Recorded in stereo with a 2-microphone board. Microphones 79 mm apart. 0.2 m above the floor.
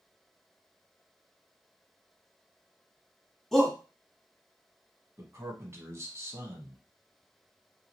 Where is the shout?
5° left (ahead or behind), 1.2 m.